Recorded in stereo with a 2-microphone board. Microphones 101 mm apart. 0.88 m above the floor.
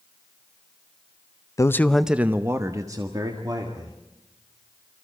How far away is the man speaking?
About 0.6 m.